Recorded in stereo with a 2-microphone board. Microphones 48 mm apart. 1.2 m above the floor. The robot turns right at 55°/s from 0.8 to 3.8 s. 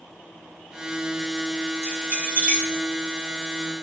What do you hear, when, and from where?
1.8 s keys jangling: 60° right (ahead or behind), 1.8 m; by 2.7 s 15° right (ahead or behind), 1.8 m